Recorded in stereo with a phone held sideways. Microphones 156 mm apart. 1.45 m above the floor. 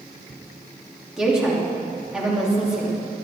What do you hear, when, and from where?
1.2 s a woman speaking: 5° right (ahead or behind), 3 m